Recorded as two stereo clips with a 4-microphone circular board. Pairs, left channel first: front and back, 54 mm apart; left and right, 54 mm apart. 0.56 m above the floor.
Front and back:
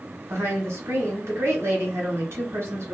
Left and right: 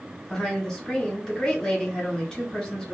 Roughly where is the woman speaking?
Behind.